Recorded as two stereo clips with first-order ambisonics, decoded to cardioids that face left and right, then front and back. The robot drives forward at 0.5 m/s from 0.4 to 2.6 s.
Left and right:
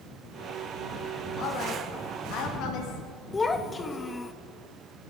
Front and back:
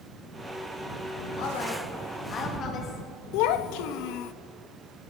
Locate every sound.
1.4 s a woman speaking: 40° left, 2.0 m; by 4.2 s 55° left, 1.6 m
3.3 s a child speaking: 15° left, 0.9 m